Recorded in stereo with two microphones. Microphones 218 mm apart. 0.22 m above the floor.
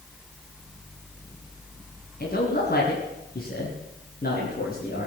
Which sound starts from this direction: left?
A man speaking, at 2.2 s.